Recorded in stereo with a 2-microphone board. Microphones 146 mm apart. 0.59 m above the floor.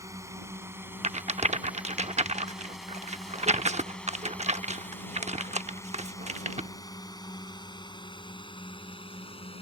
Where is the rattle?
50° right (ahead or behind).